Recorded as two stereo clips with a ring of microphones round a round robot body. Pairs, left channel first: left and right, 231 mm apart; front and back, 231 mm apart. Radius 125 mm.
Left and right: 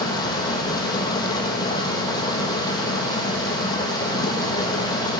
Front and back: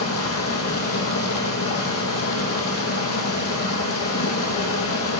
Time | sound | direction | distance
0.0 | running water | 20° left | 3 m